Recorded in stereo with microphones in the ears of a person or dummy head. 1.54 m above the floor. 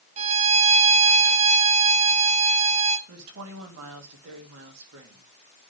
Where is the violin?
35° right (ahead or behind), 1.1 m.